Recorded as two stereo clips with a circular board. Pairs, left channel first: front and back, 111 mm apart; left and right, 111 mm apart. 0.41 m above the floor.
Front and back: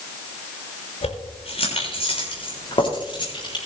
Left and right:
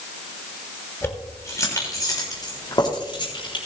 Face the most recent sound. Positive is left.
turn(degrees=45)